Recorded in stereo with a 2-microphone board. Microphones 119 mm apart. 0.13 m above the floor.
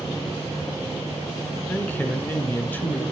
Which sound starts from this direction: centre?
A man speaking, at 1.7 s.